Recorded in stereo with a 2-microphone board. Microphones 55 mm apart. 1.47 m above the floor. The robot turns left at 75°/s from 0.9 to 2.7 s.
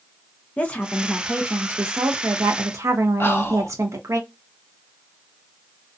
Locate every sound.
0.6 s a woman speaking: 25° left, 0.5 m; by 4.2 s 110° right, 0.5 m
3.2 s whispering: 45° left (ahead or behind), 0.8 m